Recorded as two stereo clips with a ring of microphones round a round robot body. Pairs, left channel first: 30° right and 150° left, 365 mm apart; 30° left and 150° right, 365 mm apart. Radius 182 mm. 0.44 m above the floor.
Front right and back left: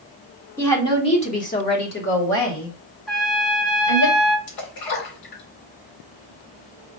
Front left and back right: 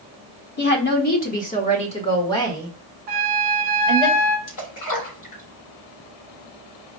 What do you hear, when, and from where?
0.6 s a woman speaking: 45° left, 1.3 m; by 4.1 s 60° right, 1.9 m
3.1 s a trumpet: 120° right, 0.9 m
4.5 s a splash: 10° right, 3 m